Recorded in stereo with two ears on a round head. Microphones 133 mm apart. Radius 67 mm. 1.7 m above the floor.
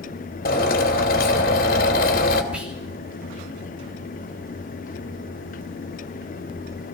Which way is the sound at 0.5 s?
70° left (ahead or behind).